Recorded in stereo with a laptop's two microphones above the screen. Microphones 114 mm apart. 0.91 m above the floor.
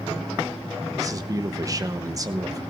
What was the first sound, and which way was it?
A man speaking, 30° right (ahead or behind).